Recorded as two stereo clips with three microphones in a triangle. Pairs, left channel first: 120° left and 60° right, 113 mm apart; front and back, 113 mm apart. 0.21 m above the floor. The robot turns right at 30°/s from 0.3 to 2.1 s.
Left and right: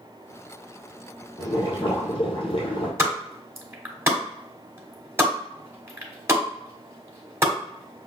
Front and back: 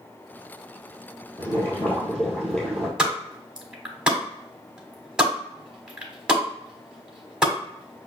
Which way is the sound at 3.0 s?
105° right.